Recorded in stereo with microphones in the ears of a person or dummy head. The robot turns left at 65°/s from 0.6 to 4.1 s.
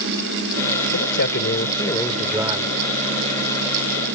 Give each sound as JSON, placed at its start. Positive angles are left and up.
{"t": 0.9, "sound": "a man speaking", "azimuth_deg": 85}